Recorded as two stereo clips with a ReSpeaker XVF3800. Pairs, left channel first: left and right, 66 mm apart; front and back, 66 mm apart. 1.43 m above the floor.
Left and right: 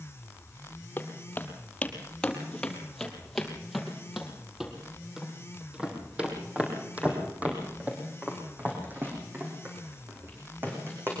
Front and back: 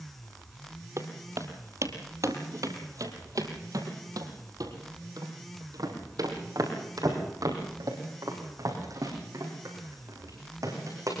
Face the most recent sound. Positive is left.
turn(degrees=-145)